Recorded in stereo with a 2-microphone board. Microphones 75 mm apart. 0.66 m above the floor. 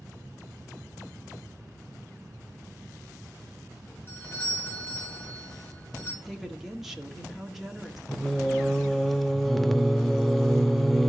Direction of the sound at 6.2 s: 5° right (ahead or behind).